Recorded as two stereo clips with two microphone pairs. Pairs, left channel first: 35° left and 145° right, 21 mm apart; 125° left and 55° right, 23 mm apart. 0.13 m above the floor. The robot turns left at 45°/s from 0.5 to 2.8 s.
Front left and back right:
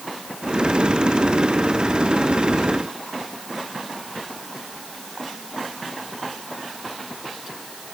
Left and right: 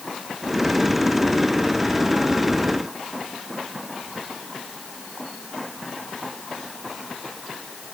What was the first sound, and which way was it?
Only background noise.